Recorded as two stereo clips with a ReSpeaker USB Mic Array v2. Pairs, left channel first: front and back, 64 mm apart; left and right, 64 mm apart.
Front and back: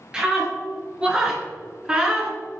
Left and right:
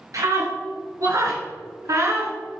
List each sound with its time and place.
0.1 s a scream: 105° right, 3.5 m; by 2.3 s 110° right, 2.5 m